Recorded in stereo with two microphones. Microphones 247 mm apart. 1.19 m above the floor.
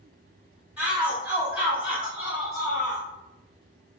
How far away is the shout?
About 1.8 m.